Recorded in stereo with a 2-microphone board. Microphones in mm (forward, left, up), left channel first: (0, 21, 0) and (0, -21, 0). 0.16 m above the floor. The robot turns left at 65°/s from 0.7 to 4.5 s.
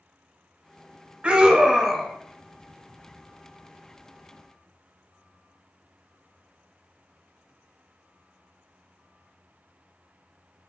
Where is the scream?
130° right, 1.3 m; by 2.1 s 175° left, 1.3 m.